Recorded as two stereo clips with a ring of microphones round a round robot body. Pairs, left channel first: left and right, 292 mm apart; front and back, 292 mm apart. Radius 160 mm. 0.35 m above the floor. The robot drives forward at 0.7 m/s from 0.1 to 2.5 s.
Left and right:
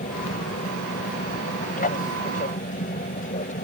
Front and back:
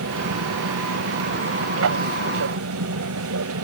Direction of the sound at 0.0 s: 145° left.